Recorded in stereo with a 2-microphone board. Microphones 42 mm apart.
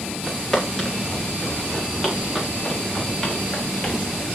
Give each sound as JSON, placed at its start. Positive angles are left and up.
{"t": 0.3, "sound": "footsteps", "side_deg": 0, "distance_m": 6.5}